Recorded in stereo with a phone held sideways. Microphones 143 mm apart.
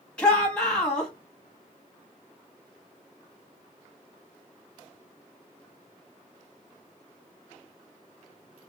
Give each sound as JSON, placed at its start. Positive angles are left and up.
{"t": 0.2, "sound": "a shout", "side_deg": 5, "distance_m": 1.3}